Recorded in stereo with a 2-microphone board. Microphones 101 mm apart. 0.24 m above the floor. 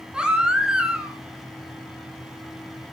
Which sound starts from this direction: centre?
A baby crying, at 0.1 s.